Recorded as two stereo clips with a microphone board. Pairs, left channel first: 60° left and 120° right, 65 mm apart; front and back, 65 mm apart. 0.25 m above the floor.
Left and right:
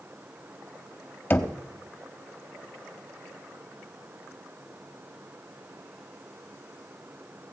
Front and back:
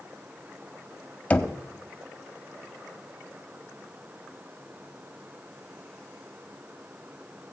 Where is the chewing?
No chewing in this recording.